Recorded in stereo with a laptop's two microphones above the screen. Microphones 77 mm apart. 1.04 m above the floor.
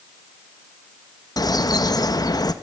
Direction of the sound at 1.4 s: 55° left (ahead or behind).